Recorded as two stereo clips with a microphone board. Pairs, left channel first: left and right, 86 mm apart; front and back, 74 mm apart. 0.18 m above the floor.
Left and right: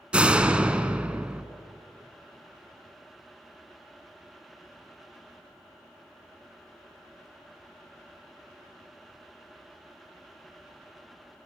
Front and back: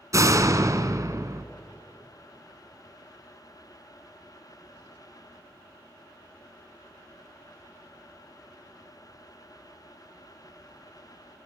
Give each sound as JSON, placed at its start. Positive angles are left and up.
{"t": 0.1, "sound": "a door slam", "azimuth_deg": -165, "distance_m": 1.2}